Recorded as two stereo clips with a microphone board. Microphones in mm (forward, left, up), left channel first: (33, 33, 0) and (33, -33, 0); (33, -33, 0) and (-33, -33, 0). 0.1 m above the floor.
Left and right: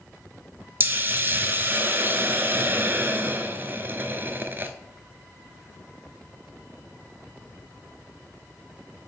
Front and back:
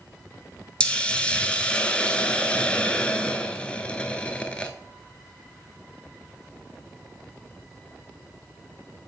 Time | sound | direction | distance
0.8 | a hiss | 65° right | 0.6 m